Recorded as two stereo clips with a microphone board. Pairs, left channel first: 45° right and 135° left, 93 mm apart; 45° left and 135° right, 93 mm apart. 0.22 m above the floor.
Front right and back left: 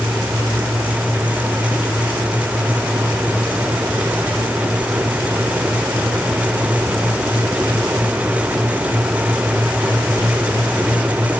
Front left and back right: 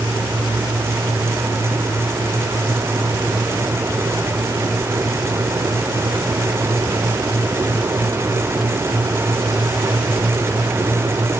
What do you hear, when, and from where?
Only background noise.